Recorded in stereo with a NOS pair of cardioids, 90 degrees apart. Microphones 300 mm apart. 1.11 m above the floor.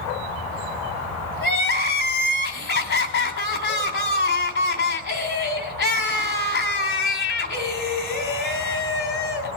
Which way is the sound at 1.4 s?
45° left.